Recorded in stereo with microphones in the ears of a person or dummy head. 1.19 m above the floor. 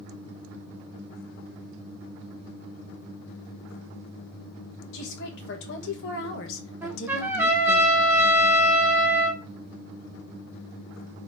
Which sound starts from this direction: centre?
A trumpet, at 6.8 s.